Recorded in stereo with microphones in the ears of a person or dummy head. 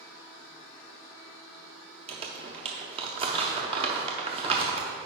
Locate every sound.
2.1 s crumpling: 30° right (ahead or behind), 0.7 m